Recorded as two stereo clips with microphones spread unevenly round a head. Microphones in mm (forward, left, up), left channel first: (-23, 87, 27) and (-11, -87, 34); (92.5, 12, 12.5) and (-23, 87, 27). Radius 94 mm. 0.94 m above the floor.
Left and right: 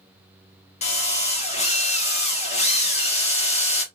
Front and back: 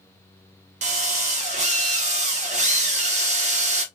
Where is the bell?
I don't hear a bell.